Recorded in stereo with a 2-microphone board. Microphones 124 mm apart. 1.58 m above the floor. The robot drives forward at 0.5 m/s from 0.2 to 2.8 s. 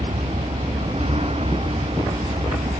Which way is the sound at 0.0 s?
50° right (ahead or behind).